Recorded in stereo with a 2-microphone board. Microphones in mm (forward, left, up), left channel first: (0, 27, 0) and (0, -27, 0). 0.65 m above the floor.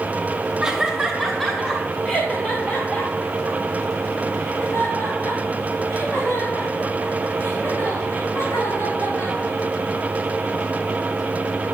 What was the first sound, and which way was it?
Laughter, 10° right (ahead or behind).